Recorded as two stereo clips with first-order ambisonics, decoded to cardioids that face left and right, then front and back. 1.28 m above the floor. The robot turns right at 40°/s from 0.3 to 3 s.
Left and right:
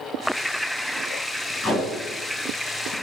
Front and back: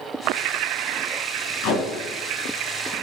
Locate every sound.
1.6 s tape being pulled: 10° left, 1.2 m; by 2.9 s 65° left, 1.2 m